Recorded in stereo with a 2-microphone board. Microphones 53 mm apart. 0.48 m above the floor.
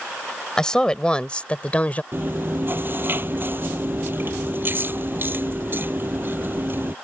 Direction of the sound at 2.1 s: 45° right (ahead or behind).